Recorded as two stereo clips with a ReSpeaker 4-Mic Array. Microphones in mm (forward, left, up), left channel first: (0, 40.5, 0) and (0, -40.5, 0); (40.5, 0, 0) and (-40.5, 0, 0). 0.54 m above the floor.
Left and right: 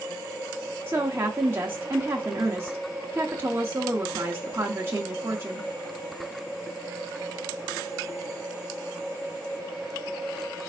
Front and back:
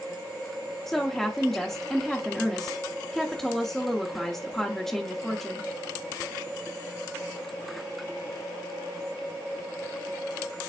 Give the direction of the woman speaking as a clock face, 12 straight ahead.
3 o'clock.